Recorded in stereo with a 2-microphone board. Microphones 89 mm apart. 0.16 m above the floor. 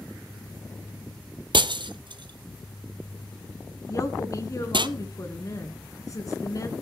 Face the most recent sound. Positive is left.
turn(degrees=40)  # may be behind; listen again after turning